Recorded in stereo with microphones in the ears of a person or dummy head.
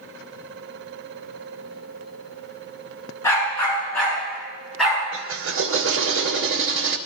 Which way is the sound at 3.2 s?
10° left (ahead or behind).